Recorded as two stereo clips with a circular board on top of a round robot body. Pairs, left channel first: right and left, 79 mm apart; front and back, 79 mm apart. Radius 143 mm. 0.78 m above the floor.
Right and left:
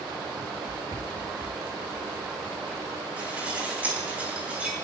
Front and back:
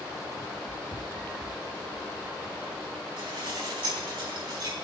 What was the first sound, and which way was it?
Running footsteps, 125° left.